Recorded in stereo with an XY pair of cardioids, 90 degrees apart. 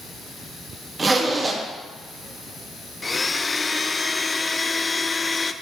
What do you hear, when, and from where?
1.0 s a zipper: 35° right, 1.7 m
3.0 s a blender: 25° left, 0.5 m